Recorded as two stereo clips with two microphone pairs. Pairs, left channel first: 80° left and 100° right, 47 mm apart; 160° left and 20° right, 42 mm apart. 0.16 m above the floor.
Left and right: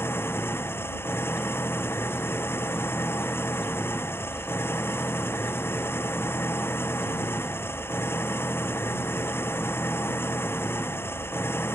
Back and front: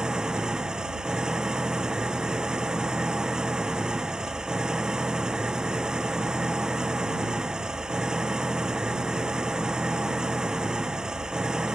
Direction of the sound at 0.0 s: 50° left.